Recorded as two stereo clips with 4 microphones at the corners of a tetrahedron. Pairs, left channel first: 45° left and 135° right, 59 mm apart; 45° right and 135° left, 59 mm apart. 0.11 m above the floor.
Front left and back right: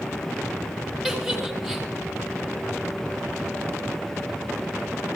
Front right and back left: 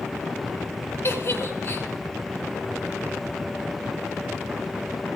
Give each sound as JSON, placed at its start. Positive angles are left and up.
{"t": 1.0, "sound": "a giggle", "azimuth_deg": -55, "distance_m": 2.0}